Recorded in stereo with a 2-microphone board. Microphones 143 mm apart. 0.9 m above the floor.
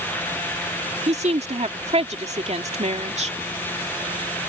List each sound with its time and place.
1.1 s a woman speaking: 50° right (ahead or behind)